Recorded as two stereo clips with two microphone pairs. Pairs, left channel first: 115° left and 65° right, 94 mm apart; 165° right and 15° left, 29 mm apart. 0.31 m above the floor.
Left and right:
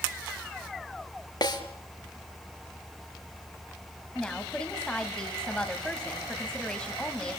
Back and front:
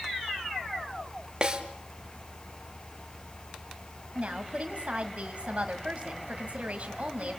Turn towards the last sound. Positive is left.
turn(degrees=35)